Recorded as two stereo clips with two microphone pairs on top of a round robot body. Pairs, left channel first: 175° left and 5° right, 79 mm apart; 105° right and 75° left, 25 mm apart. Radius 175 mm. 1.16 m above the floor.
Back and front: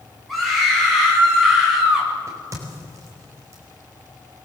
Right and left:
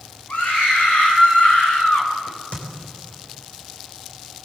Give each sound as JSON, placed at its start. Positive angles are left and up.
{"t": 0.3, "sound": "a scream", "azimuth_deg": -95, "distance_m": 8.0}
{"t": 2.3, "sound": "a crack", "azimuth_deg": -60, "distance_m": 4.5}